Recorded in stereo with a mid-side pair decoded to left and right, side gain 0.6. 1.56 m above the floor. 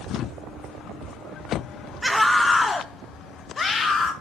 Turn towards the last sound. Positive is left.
turn(degrees=30)